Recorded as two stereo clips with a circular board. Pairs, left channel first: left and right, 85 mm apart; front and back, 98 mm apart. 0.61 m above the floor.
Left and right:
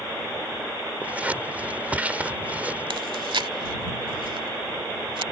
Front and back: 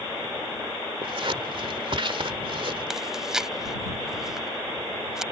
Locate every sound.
1.0 s scissors: 160° right
2.9 s chewing: 95° right